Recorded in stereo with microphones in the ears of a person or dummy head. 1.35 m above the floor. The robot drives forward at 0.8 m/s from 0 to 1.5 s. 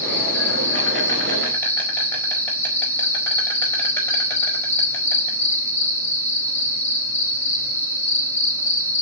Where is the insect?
10° left (ahead or behind), 6 m.